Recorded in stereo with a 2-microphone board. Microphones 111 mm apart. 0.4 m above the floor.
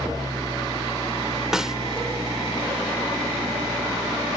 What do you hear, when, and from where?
0.0 s an engine running: 35° right (ahead or behind)
1.5 s a snare drum: 5° right (ahead or behind)